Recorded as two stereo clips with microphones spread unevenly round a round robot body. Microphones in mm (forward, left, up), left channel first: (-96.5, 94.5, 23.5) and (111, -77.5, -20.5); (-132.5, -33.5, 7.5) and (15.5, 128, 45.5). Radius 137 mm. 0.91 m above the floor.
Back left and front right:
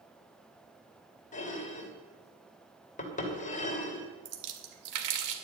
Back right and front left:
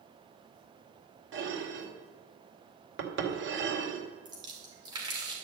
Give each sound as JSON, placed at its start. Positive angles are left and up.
{"t": 1.3, "sound": "dishes clattering", "azimuth_deg": 75, "distance_m": 2.5}
{"t": 4.2, "sound": "a splash", "azimuth_deg": -30, "distance_m": 2.0}